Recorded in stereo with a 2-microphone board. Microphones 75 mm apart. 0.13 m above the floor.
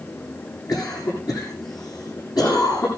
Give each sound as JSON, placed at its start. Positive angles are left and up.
{"t": 0.7, "sound": "a cough", "side_deg": 60, "distance_m": 7.0}